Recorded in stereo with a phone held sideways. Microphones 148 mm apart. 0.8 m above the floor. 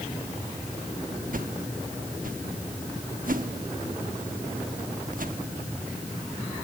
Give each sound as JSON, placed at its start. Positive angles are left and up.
{"t": 1.3, "sound": "a whoosh", "side_deg": -70, "distance_m": 1.2}